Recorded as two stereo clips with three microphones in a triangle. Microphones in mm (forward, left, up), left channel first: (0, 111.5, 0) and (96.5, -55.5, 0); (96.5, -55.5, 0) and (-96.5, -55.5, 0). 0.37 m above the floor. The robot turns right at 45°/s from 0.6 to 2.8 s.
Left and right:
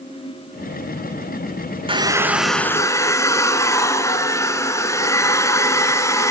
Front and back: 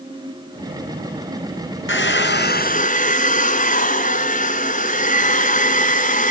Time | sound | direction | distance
1.9 | a hair dryer | 5° left | 1.9 m